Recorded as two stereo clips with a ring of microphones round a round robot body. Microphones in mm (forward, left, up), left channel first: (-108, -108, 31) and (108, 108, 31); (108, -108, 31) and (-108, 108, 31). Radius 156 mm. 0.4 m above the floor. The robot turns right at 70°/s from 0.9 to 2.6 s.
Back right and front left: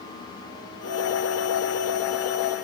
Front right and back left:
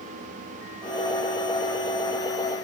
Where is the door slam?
I don't hear a door slam.